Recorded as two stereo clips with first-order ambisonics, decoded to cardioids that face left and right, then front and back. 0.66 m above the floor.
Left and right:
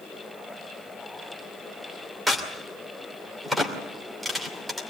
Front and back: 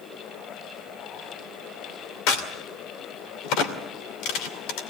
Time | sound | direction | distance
2.3 | a crack | 5° right | 2.5 m